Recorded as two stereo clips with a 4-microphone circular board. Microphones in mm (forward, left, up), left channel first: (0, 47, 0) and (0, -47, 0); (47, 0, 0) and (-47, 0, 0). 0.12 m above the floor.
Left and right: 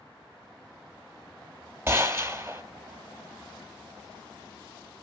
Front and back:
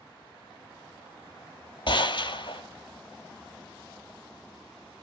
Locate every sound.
1.9 s a gunshot: 30° right, 1.0 m